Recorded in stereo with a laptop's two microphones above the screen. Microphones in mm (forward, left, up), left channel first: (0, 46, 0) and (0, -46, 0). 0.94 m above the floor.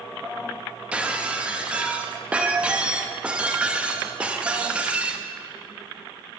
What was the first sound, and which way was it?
Breaking glass, 15° right (ahead or behind).